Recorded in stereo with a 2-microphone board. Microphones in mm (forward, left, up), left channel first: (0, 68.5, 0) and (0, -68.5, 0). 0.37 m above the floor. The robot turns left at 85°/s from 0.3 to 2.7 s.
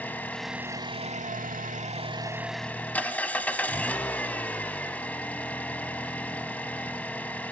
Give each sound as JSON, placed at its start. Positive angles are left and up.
{"t": 0.0, "sound": "an engine running", "azimuth_deg": 10, "distance_m": 0.8}